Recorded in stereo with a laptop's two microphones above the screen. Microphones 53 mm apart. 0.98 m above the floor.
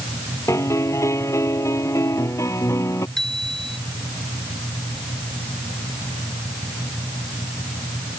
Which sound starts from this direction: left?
A piano, at 0.5 s.